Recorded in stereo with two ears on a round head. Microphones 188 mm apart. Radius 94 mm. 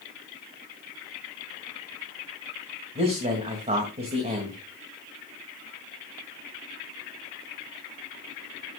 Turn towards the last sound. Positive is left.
turn(degrees=-30)  # may be behind; listen again after turning